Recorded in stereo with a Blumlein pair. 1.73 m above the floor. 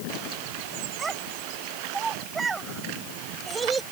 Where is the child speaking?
15° right.